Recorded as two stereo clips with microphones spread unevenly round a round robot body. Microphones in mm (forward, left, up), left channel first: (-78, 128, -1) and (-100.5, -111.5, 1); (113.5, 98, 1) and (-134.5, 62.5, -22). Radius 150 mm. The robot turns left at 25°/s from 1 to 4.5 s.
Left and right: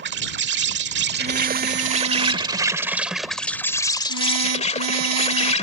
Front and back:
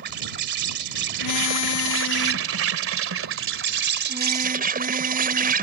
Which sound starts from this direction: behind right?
An insect, at 0.0 s.